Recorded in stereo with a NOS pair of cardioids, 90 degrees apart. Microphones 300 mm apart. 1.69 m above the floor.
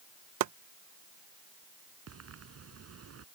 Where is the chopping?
65° right.